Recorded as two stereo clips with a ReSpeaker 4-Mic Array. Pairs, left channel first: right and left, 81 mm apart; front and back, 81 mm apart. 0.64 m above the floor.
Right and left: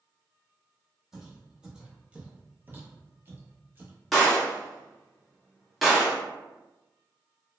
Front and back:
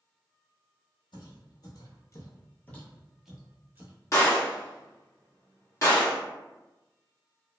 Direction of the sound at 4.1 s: Straight ahead.